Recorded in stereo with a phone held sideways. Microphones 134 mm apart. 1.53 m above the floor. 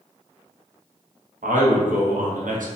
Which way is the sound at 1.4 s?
80° right.